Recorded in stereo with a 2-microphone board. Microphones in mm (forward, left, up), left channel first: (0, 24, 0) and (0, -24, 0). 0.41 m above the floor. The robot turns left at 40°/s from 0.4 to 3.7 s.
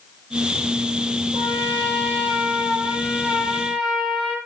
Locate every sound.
1.3 s a trumpet: 85° right, 5.5 m; by 4.4 s 175° right, 5.5 m